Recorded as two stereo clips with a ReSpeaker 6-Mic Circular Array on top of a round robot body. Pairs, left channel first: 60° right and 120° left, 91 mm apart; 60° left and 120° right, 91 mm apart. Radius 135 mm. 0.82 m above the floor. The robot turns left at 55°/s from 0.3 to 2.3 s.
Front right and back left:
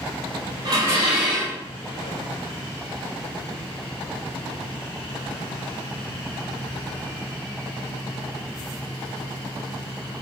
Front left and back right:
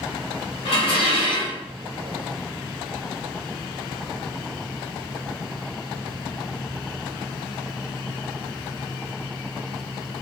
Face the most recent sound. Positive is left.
turn(degrees=-20)